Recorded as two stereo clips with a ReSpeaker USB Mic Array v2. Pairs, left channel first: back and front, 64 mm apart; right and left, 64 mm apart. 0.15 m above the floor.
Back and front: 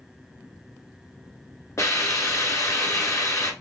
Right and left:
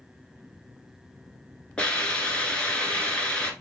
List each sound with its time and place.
1.8 s a hiss: 160° right, 1.0 m